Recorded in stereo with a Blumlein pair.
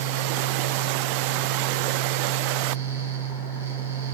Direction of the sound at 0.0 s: 65° right.